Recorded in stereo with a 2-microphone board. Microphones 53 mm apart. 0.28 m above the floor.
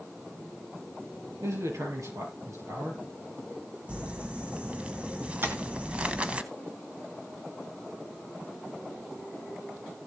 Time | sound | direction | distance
1.4 | a man speaking | 80° right | 5.5 m
3.9 | crumpling | 25° right (ahead or behind) | 1.1 m
5.4 | tapping | 45° right (ahead or behind) | 2.5 m